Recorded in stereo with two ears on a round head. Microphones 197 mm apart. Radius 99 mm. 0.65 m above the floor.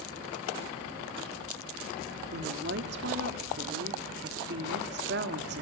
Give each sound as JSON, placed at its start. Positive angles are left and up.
{"t": 2.3, "sound": "a woman speaking", "side_deg": -50, "distance_m": 1.7}